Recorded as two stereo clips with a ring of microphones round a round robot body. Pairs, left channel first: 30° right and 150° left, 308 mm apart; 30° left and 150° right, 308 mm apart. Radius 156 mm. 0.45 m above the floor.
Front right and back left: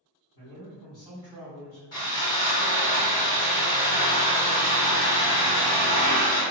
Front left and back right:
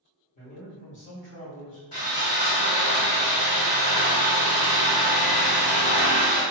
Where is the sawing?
40° right, 1.9 m.